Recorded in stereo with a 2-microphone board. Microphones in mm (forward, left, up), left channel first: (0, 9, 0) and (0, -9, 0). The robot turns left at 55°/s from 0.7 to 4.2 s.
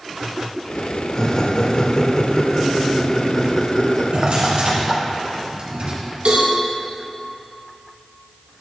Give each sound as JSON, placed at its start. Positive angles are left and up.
{"t": 1.1, "sound": "laughter", "side_deg": 35, "distance_m": 0.9}
{"t": 4.1, "sound": "a drawer", "side_deg": -55, "distance_m": 2.5}
{"t": 6.2, "sound": "a cowbell", "side_deg": -70, "distance_m": 2.5}